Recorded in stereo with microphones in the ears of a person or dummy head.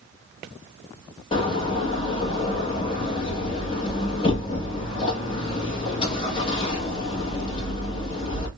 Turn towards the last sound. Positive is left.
turn(degrees=30)  # may be behind; listen again after turning